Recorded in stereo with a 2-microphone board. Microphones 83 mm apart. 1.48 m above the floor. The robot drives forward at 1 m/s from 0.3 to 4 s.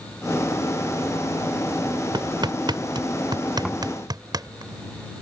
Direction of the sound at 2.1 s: 75° right (ahead or behind).